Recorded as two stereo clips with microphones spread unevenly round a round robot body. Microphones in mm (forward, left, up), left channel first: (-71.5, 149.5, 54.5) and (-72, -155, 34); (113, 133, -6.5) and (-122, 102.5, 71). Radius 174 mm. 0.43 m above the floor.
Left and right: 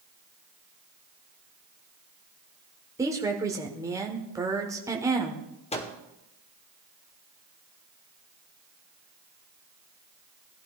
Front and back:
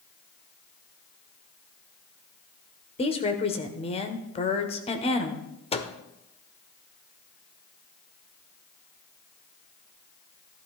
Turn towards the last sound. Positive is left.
turn(degrees=25)